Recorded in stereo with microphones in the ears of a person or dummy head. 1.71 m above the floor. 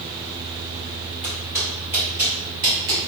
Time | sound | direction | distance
1.2 | footsteps | 20° left (ahead or behind) | 1.9 m